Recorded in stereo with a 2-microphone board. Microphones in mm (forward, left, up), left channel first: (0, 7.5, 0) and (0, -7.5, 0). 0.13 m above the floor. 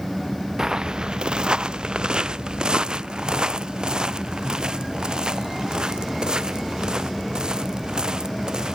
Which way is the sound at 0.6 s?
45° right (ahead or behind).